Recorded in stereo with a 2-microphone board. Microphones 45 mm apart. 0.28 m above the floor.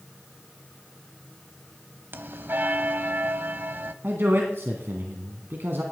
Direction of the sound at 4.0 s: 55° right (ahead or behind).